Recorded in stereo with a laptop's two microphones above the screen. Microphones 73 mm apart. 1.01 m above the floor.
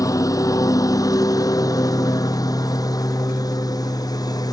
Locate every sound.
0.0 s a lawn mower: 50° left (ahead or behind); by 4.5 s 60° left (ahead or behind)